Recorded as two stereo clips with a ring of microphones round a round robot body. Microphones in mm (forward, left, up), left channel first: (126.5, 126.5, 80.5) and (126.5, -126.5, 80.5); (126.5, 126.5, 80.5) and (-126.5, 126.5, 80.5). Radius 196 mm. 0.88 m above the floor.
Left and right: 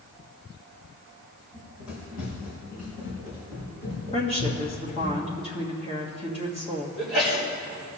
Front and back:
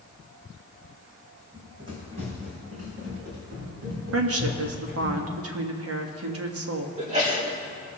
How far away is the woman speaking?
About 1.3 m.